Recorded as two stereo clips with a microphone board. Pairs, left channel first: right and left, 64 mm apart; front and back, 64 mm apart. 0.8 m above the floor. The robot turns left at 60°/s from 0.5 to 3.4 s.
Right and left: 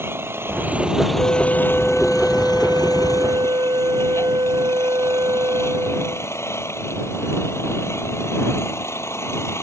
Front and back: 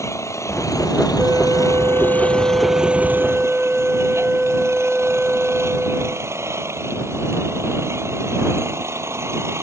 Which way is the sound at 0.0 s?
40° left.